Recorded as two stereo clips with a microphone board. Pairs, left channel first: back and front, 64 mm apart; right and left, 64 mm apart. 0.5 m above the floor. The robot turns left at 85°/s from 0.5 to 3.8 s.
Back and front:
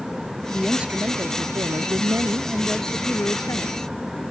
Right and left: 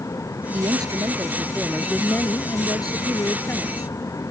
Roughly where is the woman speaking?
Left.